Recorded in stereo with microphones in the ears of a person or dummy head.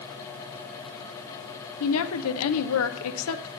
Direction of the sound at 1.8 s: 80° left.